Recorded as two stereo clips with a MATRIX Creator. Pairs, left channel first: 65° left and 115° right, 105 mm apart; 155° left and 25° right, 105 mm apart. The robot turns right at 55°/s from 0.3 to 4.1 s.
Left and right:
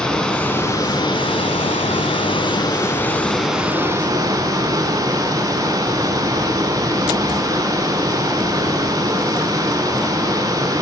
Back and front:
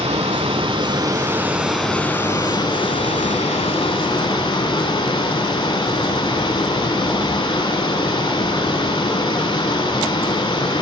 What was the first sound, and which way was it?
Running water, 15° right.